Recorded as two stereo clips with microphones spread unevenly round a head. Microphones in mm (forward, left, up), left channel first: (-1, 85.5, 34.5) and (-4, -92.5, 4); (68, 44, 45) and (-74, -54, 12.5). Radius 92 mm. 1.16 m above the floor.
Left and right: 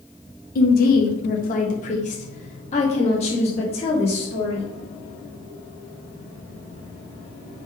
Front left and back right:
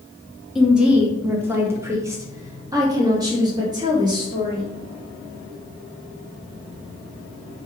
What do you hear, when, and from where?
0.6 s a woman speaking: 130° left, 1.0 m; by 4.6 s 150° left, 3 m